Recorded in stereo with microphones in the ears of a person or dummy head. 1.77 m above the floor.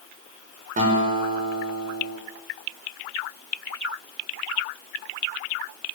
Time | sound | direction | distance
0.8 | a guitar | 45° right (ahead or behind) | 7 m